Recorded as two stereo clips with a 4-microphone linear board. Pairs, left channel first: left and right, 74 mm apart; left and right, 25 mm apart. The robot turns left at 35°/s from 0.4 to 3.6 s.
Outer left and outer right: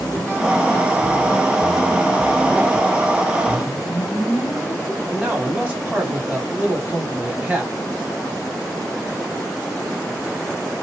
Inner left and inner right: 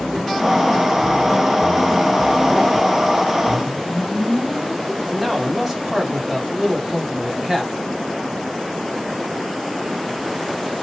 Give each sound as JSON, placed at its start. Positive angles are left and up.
{"t": 3.5, "sound": "a whoosh", "side_deg": 5, "distance_m": 0.8}
{"t": 5.1, "sound": "a man speaking", "side_deg": -20, "distance_m": 1.1}